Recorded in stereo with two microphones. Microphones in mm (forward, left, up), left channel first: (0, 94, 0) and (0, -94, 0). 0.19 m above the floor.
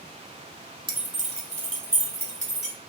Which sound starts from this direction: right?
Keys jangling, at 0.9 s.